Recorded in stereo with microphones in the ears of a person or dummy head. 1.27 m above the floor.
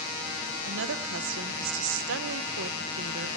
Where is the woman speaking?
70° right (ahead or behind), 0.9 m.